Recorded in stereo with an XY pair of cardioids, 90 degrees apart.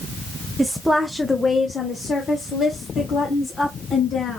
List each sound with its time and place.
0.6 s a woman speaking: 20° right, 0.6 m; by 4.4 s 70° left, 2 m